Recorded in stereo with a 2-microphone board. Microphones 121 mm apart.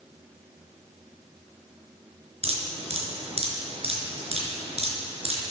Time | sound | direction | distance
2.4 | dripping | 60° right (ahead or behind) | 3 m